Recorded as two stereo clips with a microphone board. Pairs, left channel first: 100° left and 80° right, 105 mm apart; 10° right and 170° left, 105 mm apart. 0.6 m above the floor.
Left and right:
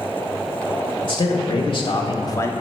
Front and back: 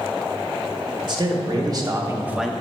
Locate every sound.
1.0 s a man speaking: 130° left, 2.0 m; by 2.5 s 65° left, 0.6 m